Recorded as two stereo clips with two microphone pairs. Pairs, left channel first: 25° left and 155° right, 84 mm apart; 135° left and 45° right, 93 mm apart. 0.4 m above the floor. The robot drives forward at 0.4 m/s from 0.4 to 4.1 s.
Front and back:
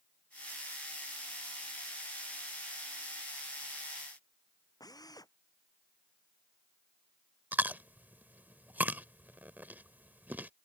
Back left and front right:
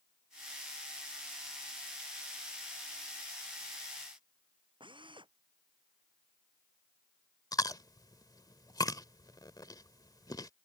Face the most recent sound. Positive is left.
turn(degrees=145)